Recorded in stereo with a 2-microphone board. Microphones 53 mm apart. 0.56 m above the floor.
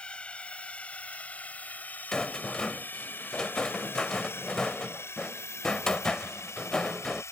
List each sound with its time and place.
0.0 s a drone: 20° left (ahead or behind); by 7.3 s 60° left (ahead or behind)
2.1 s a rattle: 15° left (ahead or behind)